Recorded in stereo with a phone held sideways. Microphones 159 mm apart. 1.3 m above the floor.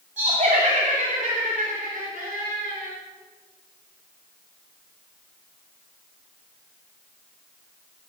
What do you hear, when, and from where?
0.2 s laughter: 50° right (ahead or behind), 3 m; by 2.9 s 60° right (ahead or behind), 4.5 m